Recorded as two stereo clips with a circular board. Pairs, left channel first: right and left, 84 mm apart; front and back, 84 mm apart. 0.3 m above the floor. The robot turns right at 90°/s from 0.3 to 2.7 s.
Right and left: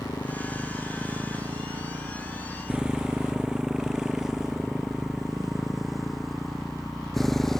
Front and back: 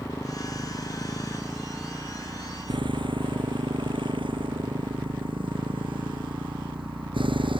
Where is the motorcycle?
50° right; by 7.6 s 175° right.